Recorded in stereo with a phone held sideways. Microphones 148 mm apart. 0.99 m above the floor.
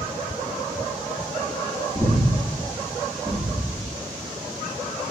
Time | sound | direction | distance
1.9 | breathing | centre (ahead or behind) | 1.6 m